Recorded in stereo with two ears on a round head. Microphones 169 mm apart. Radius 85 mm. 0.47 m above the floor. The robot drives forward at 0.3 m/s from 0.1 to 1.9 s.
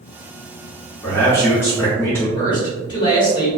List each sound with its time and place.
1.0 s a man speaking: 15° left (ahead or behind), 1.0 m
2.4 s a man speaking: 25° left (ahead or behind), 1.5 m